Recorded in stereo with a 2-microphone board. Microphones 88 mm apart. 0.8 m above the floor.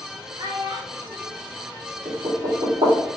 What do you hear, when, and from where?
0.4 s a child speaking: 60° right (ahead or behind), 0.8 m
2.0 s knocking: 75° right (ahead or behind), 1.5 m